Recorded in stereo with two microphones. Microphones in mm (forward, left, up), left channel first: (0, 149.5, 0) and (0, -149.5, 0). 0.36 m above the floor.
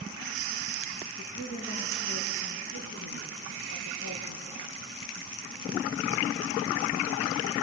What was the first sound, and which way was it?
A woman speaking, 80° left.